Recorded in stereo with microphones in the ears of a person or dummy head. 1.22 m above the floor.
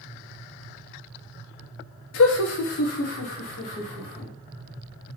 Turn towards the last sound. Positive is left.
turn(degrees=45)  # may be behind; listen again after turning